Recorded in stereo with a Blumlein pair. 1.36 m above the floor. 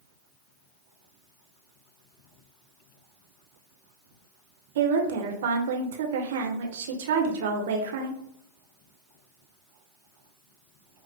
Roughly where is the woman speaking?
Ahead right.